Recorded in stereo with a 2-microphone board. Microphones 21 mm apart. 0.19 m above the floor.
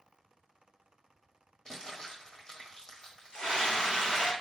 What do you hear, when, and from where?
1.6 s crumpling: 35° left (ahead or behind), 1.4 m
3.3 s a scream: 55° left (ahead or behind), 2.5 m